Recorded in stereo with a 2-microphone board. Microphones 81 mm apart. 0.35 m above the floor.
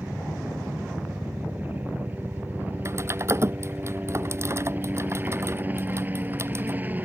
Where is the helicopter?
25° right (ahead or behind).